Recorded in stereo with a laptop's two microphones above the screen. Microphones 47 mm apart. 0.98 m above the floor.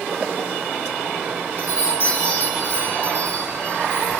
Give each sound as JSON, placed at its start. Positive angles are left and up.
{"t": 1.6, "sound": "a chime", "side_deg": 60, "distance_m": 1.7}